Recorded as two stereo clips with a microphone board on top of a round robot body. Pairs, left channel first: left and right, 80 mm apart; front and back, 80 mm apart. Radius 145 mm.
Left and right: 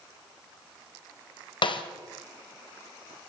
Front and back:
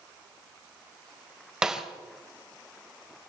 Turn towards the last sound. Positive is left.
turn(degrees=100)